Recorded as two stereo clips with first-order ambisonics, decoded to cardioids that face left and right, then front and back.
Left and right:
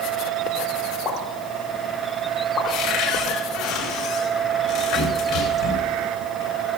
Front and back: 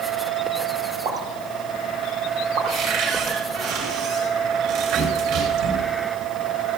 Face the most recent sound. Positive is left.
turn(degrees=145)